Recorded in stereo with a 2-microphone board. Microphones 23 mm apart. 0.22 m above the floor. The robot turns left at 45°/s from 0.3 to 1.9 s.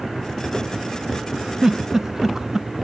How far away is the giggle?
About 0.8 m.